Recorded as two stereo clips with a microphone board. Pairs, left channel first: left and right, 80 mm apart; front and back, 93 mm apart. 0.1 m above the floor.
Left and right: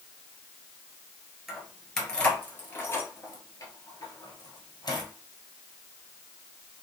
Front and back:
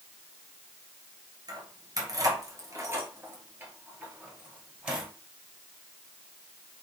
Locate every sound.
1.5 s keys jangling: 175° right, 1.4 m; by 5.1 s 100° left, 2 m